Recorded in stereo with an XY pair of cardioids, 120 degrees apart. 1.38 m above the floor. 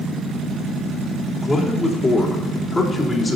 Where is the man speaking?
25° left, 3.5 m.